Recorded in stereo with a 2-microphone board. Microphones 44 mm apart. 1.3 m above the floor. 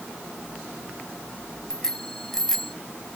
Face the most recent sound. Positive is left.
turn(degrees=10)  # may be behind; listen again after turning